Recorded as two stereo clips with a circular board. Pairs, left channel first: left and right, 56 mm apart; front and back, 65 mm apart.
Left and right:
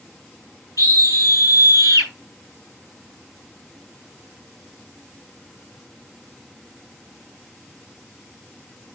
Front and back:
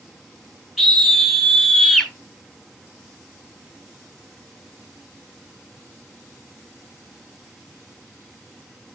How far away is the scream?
About 4.5 m.